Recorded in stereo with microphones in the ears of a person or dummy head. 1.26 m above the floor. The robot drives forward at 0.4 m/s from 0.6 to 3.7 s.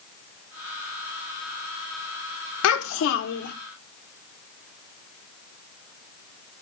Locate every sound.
2.6 s a child speaking: 80° left, 0.6 m; by 3.5 s 55° left (ahead or behind), 0.8 m